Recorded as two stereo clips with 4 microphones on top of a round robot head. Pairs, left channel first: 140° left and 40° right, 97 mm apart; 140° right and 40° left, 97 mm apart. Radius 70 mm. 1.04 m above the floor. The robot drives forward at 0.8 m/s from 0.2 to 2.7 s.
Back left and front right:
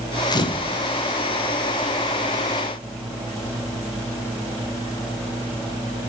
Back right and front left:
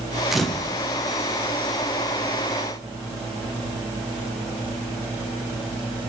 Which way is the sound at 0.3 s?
125° left.